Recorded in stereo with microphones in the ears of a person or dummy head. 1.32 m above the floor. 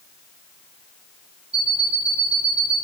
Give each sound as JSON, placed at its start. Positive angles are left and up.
{"t": 1.5, "sound": "an alarm clock", "side_deg": -35, "distance_m": 2.5}